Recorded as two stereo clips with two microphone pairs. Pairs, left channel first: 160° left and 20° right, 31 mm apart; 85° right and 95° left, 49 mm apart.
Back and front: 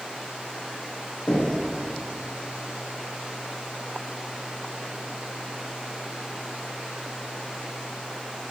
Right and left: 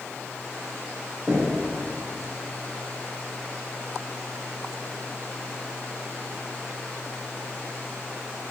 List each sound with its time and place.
1.3 s knocking: 160° left, 7 m